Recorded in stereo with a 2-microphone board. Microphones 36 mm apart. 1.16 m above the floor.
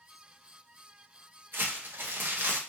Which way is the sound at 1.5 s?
75° right (ahead or behind).